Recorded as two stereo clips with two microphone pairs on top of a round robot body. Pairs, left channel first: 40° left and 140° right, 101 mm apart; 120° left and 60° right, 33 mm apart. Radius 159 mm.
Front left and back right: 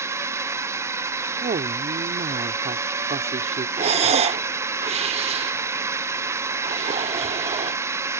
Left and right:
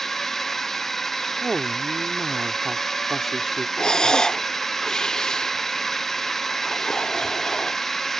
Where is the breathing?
165° right.